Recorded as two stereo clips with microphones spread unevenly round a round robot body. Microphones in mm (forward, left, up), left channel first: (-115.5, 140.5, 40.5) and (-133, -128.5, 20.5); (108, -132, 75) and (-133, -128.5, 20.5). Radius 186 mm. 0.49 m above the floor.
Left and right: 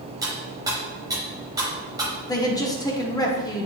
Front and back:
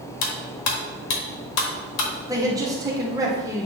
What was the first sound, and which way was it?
Cutlery clinking, 15° right.